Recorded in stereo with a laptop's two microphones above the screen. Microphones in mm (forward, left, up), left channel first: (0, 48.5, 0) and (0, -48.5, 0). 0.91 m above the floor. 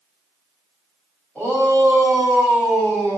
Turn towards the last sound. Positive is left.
turn(degrees=15)  # may be behind; listen again after turning